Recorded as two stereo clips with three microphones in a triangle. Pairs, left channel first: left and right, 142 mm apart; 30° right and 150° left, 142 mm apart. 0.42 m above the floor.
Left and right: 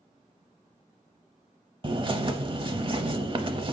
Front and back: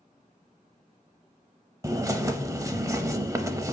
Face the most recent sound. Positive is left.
turn(degrees=-140)